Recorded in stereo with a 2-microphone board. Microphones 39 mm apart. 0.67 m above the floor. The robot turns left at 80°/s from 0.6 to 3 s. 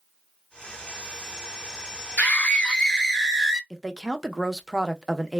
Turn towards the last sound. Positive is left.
turn(degrees=-5)  # may be behind; listen again after turning